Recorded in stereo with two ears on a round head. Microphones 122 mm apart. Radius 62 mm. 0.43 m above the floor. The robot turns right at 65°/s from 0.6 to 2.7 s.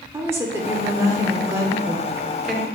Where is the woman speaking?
20° right (ahead or behind), 0.7 m; by 2.7 s 5° left (ahead or behind), 0.7 m.